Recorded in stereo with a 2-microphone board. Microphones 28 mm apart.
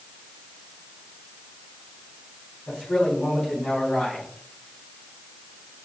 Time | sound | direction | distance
2.7 | a man speaking | 80° left | 4.5 m